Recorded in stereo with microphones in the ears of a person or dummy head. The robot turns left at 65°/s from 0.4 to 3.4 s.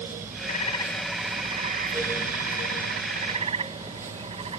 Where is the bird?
40° left; by 4.6 s 150° right.